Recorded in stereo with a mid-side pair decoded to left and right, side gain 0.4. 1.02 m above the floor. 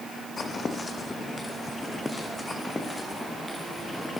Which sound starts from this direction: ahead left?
Footsteps, at 0.4 s.